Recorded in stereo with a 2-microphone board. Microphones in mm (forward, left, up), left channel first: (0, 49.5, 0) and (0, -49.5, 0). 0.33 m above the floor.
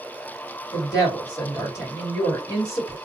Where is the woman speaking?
35° left (ahead or behind), 1.5 m.